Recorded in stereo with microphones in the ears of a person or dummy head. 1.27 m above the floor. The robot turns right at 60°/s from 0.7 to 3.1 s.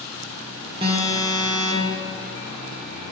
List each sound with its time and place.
0.8 s an alarm: 110° right, 0.9 m; by 2.0 s 35° right, 0.9 m